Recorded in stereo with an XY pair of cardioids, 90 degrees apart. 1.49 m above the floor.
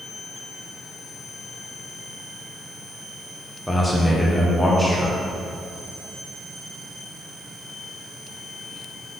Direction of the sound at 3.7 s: Straight ahead.